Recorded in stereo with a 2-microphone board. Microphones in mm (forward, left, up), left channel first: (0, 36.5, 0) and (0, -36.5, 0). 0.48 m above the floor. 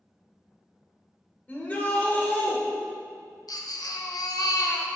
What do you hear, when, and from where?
1.5 s a shout: 25° left (ahead or behind), 1.4 m
3.5 s a baby crying: 65° left (ahead or behind), 0.6 m